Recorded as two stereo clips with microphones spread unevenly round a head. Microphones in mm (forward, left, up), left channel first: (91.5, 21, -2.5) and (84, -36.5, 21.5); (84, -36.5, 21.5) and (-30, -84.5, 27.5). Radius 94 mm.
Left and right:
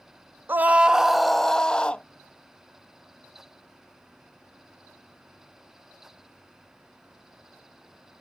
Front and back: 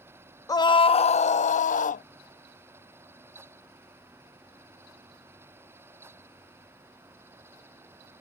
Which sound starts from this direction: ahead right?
A scream, at 0.5 s.